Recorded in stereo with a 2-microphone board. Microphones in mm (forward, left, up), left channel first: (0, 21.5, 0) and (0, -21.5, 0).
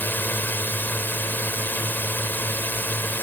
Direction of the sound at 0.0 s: 50° left (ahead or behind).